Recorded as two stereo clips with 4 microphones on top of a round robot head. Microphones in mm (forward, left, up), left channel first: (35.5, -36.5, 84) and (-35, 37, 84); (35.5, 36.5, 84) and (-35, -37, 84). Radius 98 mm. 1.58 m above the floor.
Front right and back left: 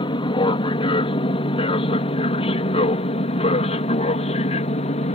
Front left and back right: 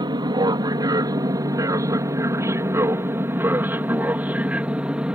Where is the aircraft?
85° right; by 5.2 s 50° right.